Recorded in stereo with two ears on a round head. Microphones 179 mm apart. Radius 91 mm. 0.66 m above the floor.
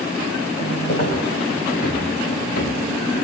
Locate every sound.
0.9 s footsteps: 45° left (ahead or behind), 9 m